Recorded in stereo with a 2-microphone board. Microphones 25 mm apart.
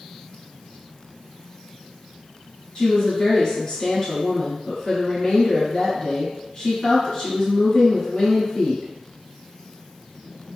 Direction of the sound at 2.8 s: 35° left (ahead or behind).